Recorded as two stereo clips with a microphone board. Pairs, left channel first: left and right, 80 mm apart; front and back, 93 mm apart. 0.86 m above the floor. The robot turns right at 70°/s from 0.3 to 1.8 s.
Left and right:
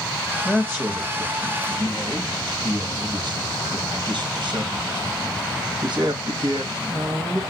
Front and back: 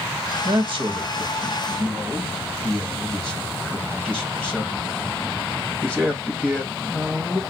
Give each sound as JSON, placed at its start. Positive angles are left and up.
{"t": 0.5, "sound": "a man speaking", "azimuth_deg": -175, "distance_m": 1.0}